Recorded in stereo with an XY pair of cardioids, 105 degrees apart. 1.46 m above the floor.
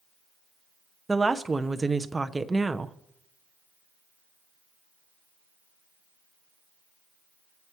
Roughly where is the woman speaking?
Ahead.